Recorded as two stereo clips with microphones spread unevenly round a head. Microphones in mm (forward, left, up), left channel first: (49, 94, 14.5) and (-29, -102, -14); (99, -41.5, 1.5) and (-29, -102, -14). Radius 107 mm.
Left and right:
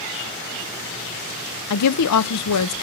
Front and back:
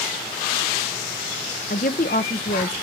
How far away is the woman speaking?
About 0.6 m.